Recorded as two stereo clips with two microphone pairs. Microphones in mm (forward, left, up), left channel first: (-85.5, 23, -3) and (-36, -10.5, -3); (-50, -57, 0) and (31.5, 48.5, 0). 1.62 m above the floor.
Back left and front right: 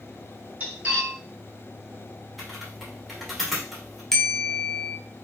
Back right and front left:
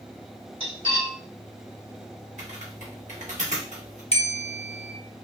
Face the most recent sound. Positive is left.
turn(degrees=-135)